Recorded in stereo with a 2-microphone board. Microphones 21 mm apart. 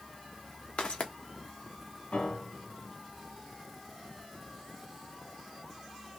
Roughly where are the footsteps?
Left.